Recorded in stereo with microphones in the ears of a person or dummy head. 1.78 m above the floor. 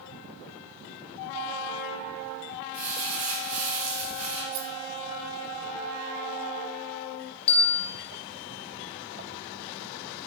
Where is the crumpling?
80° right, 5 m.